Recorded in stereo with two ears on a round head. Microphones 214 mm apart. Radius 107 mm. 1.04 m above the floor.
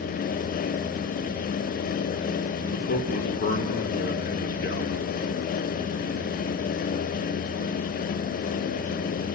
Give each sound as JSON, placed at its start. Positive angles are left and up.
{"t": 2.7, "sound": "a man speaking", "side_deg": 40, "distance_m": 3.0}